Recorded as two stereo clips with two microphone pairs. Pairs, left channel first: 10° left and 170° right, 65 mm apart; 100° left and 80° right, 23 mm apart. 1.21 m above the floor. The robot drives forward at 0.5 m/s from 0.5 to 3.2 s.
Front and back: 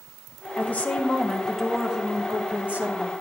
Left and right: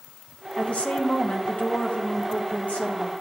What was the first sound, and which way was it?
A woman speaking, 75° left.